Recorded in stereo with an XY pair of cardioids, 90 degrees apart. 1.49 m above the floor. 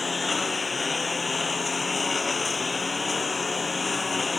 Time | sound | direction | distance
0.0 | a lawn mower | 30° left | ?